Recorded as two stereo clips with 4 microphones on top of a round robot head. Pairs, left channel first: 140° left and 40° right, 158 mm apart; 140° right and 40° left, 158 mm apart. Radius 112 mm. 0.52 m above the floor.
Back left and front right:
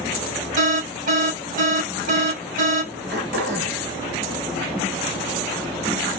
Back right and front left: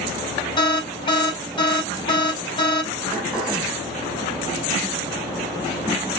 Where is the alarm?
75° right, 5 m.